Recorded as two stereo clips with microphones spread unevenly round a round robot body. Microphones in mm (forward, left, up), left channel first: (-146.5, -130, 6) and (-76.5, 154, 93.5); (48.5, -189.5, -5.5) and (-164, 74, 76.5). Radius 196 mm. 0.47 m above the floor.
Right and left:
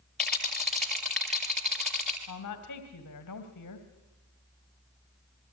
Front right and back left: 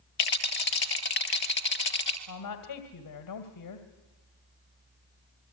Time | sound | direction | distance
0.2 | a rattle | 15° right | 1.8 m
2.3 | a woman speaking | 60° right | 2 m